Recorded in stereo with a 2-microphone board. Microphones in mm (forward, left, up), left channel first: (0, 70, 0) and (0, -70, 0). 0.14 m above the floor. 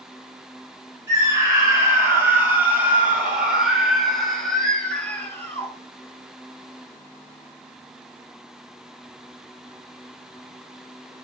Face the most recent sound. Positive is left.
turn(degrees=15)  # may be behind; listen again after turning